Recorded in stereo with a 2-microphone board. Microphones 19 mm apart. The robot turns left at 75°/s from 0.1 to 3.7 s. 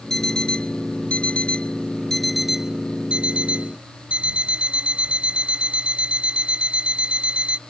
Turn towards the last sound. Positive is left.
turn(degrees=-110)